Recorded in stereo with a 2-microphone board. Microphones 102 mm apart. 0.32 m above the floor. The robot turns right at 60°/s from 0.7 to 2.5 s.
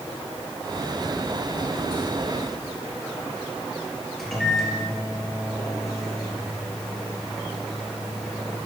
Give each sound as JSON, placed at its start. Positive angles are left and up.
{"t": 4.2, "sound": "a microwave", "side_deg": 0, "distance_m": 4.5}